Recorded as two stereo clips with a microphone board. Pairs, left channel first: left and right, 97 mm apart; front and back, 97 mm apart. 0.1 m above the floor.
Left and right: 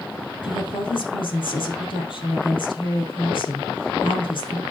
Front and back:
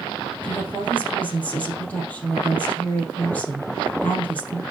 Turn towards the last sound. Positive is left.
turn(degrees=70)